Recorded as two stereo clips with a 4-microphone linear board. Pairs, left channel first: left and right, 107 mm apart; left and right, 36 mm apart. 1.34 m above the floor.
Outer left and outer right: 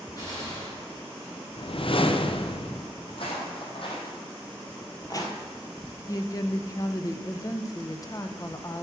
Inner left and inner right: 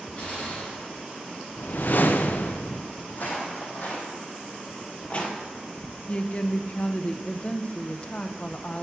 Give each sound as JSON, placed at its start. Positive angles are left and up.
{"t": 0.2, "sound": "a gunshot", "side_deg": 35, "distance_m": 4.5}
{"t": 1.6, "sound": "a whoosh", "side_deg": 55, "distance_m": 0.6}
{"t": 3.1, "sound": "footsteps", "side_deg": 60, "distance_m": 3.0}
{"t": 6.1, "sound": "a woman speaking", "side_deg": 35, "distance_m": 0.7}